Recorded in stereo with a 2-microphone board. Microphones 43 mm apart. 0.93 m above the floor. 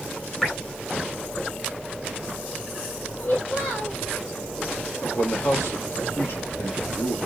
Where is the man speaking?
65° left (ahead or behind), 1.9 m.